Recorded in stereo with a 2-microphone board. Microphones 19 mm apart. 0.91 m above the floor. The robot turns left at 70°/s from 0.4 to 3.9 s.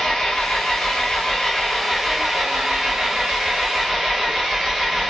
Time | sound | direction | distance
0.0 | an engine running | 110° left | 1.4 m